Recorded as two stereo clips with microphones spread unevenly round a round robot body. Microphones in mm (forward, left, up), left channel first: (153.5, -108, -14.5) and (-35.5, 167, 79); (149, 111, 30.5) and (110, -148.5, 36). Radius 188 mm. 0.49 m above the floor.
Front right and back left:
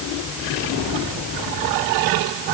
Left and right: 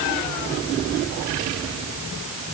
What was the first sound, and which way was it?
Only background noise.